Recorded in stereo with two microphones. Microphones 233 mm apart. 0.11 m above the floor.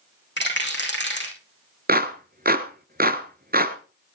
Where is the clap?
40° right (ahead or behind), 1.3 m.